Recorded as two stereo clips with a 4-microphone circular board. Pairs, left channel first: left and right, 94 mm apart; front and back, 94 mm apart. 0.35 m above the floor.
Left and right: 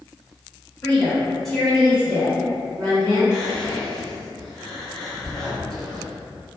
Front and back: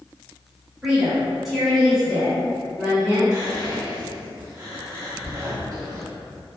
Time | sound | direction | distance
0.8 | a woman speaking | 120° left | 1.0 m
3.3 | whispering | 170° left | 1.0 m